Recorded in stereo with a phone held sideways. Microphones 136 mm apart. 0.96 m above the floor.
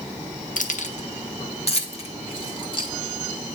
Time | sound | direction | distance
0.6 | keys jangling | 70° left (ahead or behind) | 0.9 m